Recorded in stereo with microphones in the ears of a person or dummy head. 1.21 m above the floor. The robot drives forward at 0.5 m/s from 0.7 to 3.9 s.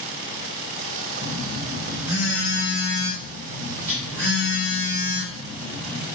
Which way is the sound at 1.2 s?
5° right (ahead or behind).